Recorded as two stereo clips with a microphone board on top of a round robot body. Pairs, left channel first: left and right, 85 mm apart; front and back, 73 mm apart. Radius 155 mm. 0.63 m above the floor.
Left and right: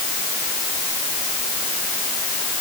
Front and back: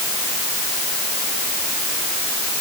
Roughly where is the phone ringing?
I don't hear a phone ringing.